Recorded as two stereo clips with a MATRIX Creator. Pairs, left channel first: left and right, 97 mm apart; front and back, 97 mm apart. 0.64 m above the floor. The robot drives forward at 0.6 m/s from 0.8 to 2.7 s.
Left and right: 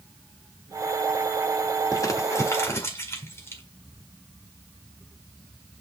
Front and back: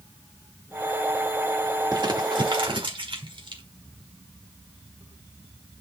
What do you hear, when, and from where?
1.9 s crumpling: 140° left, 1.2 m; by 3.6 s 150° left, 1.6 m